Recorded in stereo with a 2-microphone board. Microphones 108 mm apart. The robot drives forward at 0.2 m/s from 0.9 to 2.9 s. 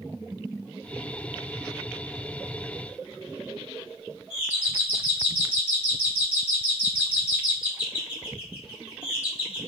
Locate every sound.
4.3 s a doorbell: 15° right (ahead or behind), 1.4 m